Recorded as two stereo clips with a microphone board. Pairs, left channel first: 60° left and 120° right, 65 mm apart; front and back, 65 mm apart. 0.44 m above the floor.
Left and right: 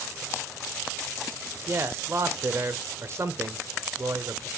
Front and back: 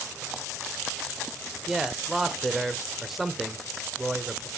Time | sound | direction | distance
1.7 | a man speaking | 95° right | 1.2 m